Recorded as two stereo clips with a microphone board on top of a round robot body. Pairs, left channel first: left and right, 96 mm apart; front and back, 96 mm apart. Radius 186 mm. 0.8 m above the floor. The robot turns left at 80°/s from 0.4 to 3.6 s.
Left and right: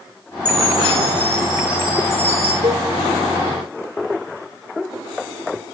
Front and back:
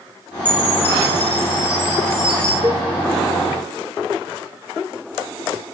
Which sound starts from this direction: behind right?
A cowbell, at 2.6 s.